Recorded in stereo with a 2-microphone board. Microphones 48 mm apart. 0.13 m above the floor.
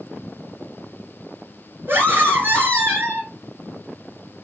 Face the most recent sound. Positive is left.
turn(degrees=-45)  # may be behind; listen again after turning